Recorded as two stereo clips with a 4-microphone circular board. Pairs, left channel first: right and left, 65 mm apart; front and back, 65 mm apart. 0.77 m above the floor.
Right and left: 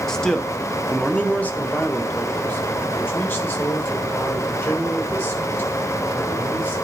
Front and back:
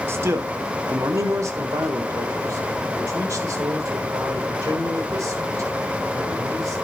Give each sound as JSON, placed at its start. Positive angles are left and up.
{"t": 0.1, "sound": "a man speaking", "azimuth_deg": -170, "distance_m": 1.1}